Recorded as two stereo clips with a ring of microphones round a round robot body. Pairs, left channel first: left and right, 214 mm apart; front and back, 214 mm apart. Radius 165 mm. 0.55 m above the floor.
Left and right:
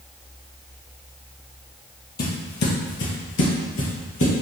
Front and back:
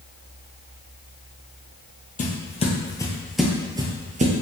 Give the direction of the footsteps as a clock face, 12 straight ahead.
10 o'clock.